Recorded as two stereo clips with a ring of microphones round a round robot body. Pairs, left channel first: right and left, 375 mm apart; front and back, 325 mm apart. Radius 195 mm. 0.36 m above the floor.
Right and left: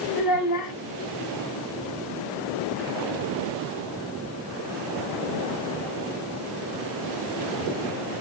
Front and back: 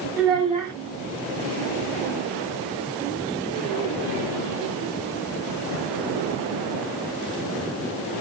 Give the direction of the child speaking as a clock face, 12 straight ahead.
3 o'clock.